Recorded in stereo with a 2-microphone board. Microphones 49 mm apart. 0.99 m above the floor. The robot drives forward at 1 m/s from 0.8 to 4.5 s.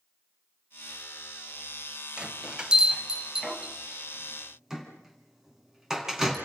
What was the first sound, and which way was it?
A bell, 25° right (ahead or behind).